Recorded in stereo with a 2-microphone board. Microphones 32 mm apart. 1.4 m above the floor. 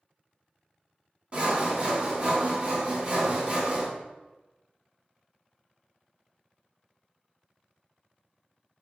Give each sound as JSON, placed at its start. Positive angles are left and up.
{"t": 1.3, "sound": "sawing", "side_deg": -35, "distance_m": 1.0}